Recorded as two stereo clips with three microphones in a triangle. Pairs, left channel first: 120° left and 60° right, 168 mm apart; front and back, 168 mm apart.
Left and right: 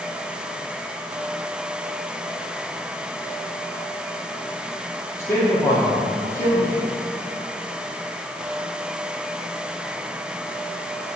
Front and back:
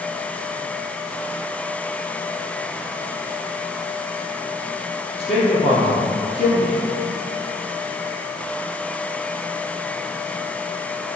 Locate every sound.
5.2 s a man speaking: 50° left, 3 m